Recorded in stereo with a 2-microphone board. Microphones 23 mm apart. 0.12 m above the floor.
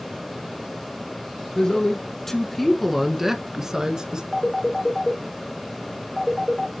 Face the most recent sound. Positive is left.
turn(degrees=20)  # may be behind; listen again after turning